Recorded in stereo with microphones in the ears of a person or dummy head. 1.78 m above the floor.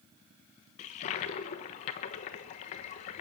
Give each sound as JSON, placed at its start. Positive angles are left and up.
{"t": 0.8, "sound": "a toilet flushing", "side_deg": 40, "distance_m": 1.2}